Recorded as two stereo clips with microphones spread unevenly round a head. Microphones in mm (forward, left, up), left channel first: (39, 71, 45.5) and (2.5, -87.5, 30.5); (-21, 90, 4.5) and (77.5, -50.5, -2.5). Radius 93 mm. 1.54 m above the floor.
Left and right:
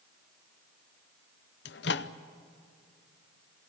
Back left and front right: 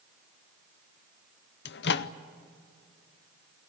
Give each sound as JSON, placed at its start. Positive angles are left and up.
{"t": 1.6, "sound": "a microwave", "azimuth_deg": 105, "distance_m": 0.6}